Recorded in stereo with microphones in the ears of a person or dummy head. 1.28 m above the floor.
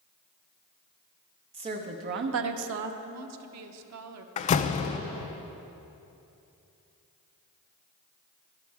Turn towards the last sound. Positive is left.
turn(degrees=35)  # may be behind; listen again after turning